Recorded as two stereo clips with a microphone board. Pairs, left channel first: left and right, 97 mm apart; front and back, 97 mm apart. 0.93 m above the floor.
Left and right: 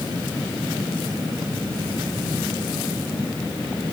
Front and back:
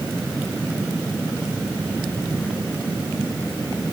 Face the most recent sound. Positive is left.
No sound to turn to.